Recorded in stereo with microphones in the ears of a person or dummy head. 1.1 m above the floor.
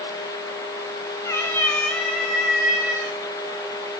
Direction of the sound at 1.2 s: 25° left (ahead or behind).